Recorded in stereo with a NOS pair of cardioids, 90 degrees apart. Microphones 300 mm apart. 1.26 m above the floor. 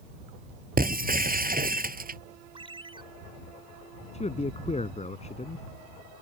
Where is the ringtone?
15° right.